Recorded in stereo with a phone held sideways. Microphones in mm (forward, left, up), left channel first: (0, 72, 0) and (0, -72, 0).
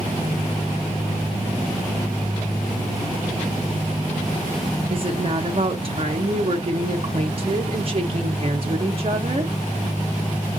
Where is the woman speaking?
40° right (ahead or behind), 0.6 m.